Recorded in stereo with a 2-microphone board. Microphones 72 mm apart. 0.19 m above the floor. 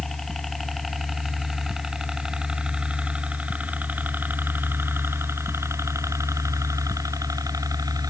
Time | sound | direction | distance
0.0 | a helicopter | 5° left (ahead or behind) | ?